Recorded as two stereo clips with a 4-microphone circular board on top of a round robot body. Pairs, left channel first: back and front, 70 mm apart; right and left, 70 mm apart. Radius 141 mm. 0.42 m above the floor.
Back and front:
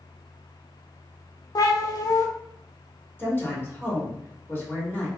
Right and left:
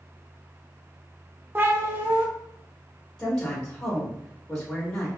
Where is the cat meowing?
150° left, 0.6 m.